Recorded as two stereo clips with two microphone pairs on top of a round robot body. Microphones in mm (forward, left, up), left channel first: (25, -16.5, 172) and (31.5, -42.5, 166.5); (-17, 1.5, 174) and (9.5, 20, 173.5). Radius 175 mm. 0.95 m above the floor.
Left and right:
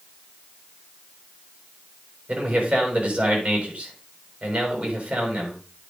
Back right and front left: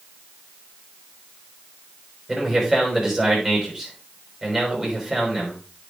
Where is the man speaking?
50° right, 6 m.